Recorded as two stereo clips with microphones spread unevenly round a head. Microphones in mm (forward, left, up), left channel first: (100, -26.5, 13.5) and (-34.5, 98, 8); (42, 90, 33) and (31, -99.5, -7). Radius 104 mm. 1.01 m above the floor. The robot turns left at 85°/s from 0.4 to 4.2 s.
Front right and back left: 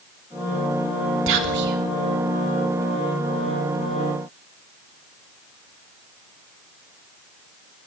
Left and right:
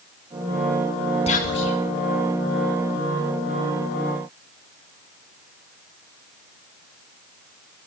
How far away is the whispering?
About 3 m.